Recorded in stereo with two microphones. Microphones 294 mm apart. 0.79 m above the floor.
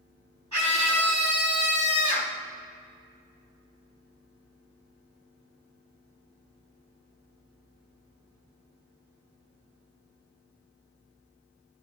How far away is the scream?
About 5.5 m.